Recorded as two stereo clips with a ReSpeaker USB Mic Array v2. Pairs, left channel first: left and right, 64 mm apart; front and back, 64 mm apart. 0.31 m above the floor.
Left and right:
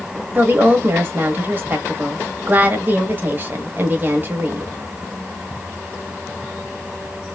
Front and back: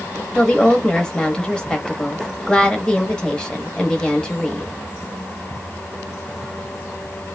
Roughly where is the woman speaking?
Ahead right.